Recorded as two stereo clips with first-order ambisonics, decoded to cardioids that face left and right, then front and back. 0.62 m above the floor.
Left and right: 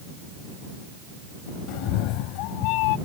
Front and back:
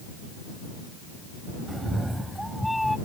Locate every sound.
1.7 s a cat meowing: 100° left; by 3.0 s 85° left